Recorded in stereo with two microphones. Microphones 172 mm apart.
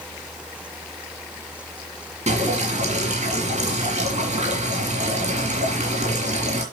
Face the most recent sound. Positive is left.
turn(degrees=-40)  # may be behind; listen again after turning